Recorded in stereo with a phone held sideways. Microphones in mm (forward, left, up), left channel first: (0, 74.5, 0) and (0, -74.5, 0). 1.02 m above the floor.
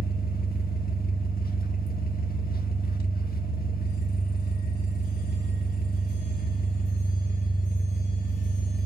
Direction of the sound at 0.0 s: 85° left.